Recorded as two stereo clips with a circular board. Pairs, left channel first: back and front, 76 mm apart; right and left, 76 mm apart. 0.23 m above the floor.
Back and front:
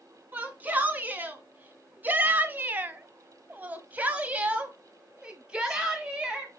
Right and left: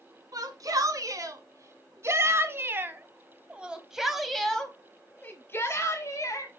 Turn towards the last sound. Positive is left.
turn(degrees=-85)